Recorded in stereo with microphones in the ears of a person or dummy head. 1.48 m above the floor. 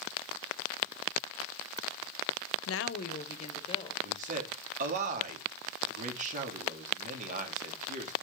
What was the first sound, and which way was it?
A woman speaking, 80° left.